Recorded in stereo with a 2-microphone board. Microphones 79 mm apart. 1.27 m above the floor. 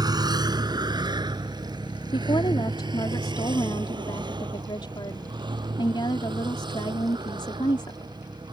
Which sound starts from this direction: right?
A vehicle, at 0.0 s.